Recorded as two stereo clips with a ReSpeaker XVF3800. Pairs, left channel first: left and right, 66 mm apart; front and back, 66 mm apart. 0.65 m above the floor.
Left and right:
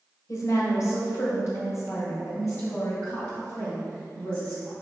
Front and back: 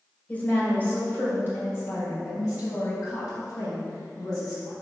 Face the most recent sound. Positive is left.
turn(degrees=35)